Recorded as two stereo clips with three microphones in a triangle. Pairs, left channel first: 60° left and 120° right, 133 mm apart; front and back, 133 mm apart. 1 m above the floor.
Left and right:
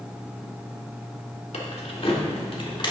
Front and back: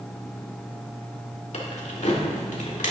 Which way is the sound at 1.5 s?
30° left.